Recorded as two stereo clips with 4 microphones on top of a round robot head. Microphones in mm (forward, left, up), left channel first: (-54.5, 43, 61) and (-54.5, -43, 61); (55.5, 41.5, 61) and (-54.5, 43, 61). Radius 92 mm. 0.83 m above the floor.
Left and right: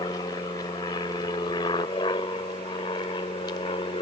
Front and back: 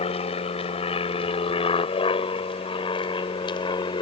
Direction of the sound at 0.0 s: 30° left.